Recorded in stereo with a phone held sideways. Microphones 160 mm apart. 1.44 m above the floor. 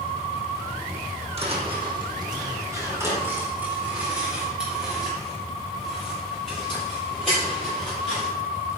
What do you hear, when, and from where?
1.4 s footsteps: 40° right (ahead or behind), 2.5 m; by 8.3 s 5° left (ahead or behind), 9.5 m